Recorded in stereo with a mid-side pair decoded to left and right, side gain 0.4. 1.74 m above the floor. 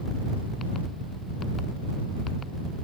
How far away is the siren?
No siren in this recording.